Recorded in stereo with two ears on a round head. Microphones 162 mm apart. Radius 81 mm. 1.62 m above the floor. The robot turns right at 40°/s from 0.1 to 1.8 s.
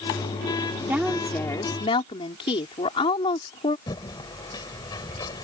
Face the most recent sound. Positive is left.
turn(degrees=20)  # may be behind; listen again after turning